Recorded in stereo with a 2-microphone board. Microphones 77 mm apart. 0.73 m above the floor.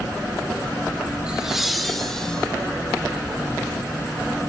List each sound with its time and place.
1.3 s laughter: 15° right (ahead or behind), 2 m; by 2.5 s 10° left (ahead or behind), 3.5 m